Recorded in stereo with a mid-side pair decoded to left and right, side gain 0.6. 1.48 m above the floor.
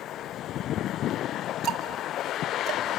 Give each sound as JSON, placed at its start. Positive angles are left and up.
{"t": 1.6, "sound": "ticking", "azimuth_deg": -55, "distance_m": 1.7}